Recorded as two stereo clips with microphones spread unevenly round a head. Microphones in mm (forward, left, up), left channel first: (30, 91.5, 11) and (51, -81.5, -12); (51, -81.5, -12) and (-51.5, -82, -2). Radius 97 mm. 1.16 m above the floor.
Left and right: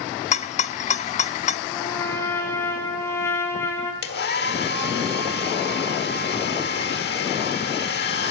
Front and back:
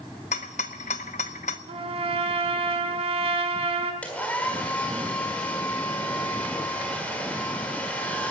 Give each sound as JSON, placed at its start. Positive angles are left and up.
{"t": 0.3, "sound": "a rattle", "azimuth_deg": 45, "distance_m": 0.6}
{"t": 1.7, "sound": "a trumpet", "azimuth_deg": 170, "distance_m": 2.0}
{"t": 4.0, "sound": "a hair dryer", "azimuth_deg": 85, "distance_m": 1.6}